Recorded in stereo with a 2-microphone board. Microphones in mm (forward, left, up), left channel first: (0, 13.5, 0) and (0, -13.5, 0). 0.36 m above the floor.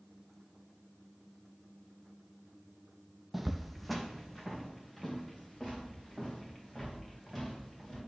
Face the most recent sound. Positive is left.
turn(degrees=15)  # may be behind; listen again after turning